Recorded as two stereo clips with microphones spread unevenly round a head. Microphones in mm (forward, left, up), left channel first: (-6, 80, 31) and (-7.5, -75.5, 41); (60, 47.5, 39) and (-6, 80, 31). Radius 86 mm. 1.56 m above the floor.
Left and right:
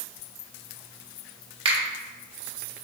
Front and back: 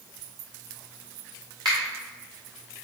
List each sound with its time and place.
1.6 s a finger snap: 140° right, 0.9 m